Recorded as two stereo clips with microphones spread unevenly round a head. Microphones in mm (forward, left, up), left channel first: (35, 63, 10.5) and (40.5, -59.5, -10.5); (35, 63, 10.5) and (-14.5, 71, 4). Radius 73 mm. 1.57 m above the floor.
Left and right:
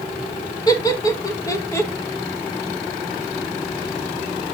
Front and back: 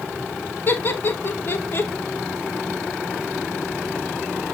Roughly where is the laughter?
Ahead left.